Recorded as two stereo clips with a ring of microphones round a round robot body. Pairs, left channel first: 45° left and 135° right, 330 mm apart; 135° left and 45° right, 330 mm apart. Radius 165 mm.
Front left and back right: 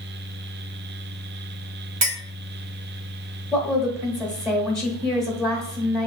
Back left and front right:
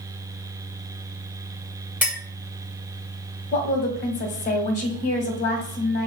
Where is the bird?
No bird in this recording.